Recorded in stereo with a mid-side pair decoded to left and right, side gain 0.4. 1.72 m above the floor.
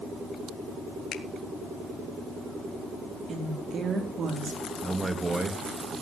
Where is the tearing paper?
I don't hear tearing paper.